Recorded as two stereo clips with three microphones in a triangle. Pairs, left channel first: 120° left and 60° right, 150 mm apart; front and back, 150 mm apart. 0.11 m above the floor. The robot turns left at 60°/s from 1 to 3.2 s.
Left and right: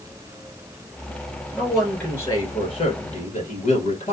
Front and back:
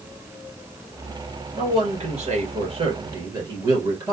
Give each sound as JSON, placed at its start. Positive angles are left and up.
{"t": 1.5, "sound": "a man speaking", "azimuth_deg": -135, "distance_m": 2.0}